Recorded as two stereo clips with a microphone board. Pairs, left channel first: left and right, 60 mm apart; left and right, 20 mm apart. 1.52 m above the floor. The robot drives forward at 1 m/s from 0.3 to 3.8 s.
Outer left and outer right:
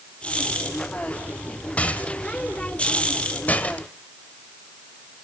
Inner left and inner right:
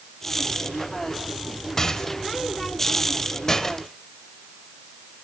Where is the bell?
I don't hear a bell.